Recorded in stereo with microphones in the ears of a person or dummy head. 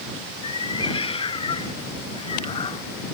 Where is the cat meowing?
30° left (ahead or behind); by 2.9 s 35° left (ahead or behind).